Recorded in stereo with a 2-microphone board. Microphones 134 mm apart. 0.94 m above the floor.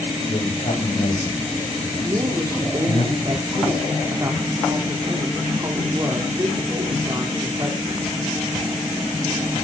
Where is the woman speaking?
30° right (ahead or behind), 2.5 m.